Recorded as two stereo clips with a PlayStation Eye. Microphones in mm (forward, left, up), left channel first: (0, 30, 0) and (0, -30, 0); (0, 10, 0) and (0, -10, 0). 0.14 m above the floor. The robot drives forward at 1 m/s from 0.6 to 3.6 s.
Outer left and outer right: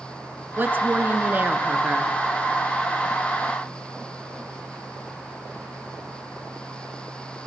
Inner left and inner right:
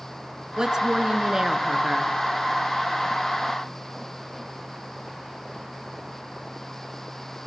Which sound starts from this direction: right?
A woman speaking, at 0.6 s.